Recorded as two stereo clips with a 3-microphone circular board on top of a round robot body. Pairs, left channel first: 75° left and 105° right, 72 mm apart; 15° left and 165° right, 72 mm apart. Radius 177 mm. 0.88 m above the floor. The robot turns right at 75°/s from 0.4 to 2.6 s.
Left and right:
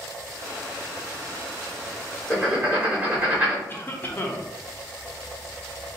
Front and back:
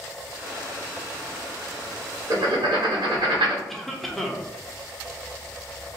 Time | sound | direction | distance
2.3 | writing | 160° left | 1.2 m
3.7 | a cough | 100° left | 0.9 m